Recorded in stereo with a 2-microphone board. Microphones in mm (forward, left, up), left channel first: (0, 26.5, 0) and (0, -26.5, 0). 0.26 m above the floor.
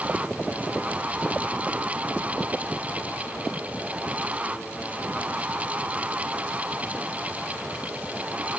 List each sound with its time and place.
Only background noise.